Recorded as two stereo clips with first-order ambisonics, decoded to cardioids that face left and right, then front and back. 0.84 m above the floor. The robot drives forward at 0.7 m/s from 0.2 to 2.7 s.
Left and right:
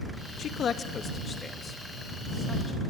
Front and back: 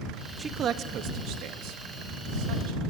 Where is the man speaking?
115° left, 0.5 m; by 2.8 s 170° left, 1.8 m.